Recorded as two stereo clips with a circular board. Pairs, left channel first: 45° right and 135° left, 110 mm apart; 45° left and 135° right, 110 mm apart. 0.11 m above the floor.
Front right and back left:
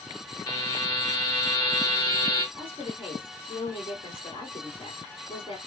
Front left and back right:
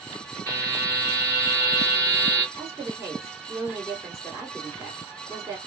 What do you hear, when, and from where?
0.5 s a buzzer: 15° right, 1.8 m
2.5 s a woman speaking: 40° right, 2.0 m